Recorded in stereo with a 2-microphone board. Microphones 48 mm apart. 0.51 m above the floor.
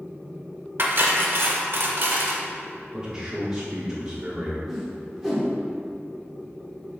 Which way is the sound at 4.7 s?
Centre (ahead or behind).